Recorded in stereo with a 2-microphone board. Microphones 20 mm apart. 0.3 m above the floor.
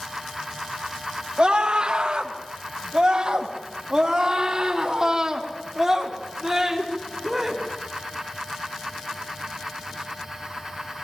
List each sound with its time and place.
1.4 s a scream: 45° right (ahead or behind), 2 m; by 7.6 s 15° right (ahead or behind), 4 m